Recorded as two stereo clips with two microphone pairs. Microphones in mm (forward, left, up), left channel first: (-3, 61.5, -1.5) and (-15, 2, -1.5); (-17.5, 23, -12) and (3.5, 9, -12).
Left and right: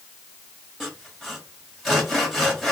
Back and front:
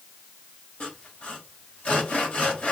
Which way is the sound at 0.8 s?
170° left.